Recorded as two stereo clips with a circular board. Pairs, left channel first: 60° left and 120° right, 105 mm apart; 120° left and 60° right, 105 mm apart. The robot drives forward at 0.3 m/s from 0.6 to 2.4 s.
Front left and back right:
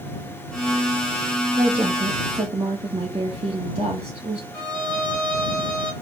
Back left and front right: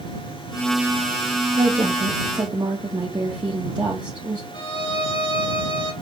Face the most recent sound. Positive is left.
turn(degrees=140)